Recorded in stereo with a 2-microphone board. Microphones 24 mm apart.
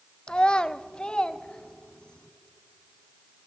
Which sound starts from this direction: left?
A child speaking, at 0.3 s.